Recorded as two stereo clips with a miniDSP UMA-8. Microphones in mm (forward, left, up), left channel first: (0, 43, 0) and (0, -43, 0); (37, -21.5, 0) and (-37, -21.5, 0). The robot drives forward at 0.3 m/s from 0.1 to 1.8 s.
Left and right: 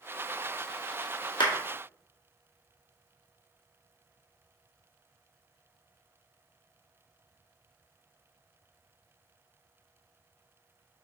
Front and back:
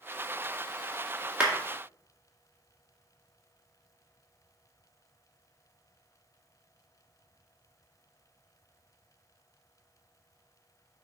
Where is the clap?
105° left, 2 m.